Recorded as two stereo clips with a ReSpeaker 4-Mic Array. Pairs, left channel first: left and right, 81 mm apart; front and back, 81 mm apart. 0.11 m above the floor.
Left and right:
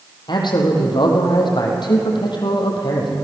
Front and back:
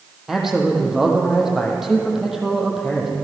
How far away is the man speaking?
About 5 m.